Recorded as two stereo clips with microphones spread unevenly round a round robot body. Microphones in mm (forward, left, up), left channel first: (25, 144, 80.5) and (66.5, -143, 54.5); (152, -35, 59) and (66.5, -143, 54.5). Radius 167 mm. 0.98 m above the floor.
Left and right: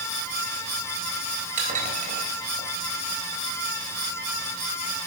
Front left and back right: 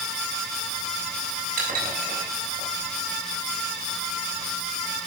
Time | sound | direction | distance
1.6 | dishes clattering | 150° right | 3.5 m